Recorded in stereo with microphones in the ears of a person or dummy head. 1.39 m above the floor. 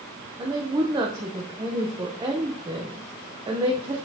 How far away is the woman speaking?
About 0.9 m.